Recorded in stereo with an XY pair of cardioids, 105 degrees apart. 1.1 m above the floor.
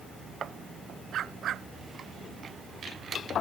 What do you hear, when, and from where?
1.1 s a dog barking: 65° right